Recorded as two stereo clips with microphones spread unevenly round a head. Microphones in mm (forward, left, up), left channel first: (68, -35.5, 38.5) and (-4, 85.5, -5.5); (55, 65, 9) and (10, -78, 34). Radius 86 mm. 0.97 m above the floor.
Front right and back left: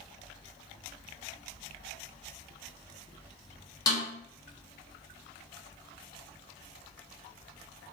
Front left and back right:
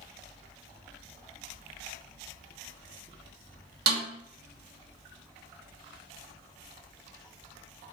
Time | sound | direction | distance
3.9 | a snare drum | 135° right | 0.9 m